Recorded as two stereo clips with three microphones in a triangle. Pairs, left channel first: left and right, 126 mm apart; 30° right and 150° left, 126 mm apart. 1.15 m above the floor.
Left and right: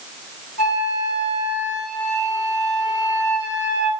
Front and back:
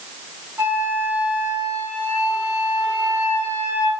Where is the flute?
80° left, 3.5 m.